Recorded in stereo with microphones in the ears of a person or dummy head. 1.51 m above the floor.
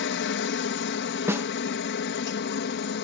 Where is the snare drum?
10° right (ahead or behind).